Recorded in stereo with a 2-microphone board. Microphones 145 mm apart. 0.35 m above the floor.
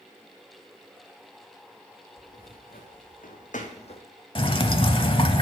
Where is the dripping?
40° left (ahead or behind), 0.7 m.